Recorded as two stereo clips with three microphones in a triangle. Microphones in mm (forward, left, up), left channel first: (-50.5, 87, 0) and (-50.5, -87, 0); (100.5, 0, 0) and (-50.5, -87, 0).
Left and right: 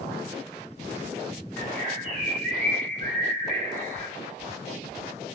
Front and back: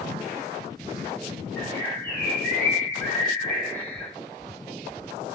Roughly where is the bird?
Ahead right.